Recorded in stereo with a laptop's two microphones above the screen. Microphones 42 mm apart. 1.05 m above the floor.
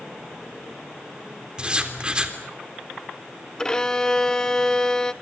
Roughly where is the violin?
Centre.